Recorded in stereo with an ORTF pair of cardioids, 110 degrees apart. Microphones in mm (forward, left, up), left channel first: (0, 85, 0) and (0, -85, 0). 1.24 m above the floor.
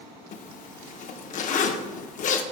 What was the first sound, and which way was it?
A zipper, 50° left.